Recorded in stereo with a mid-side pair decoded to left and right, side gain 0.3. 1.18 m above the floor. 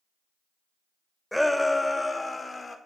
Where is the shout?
10° left, 1.0 m; by 2.8 s 45° left, 1.6 m.